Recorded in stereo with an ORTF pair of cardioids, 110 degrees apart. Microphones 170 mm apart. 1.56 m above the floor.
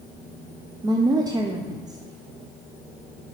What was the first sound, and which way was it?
A woman speaking, 20° right.